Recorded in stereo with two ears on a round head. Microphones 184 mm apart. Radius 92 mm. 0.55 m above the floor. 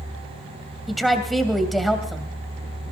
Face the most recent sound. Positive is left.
turn(degrees=0)  # may be behind; listen again after turning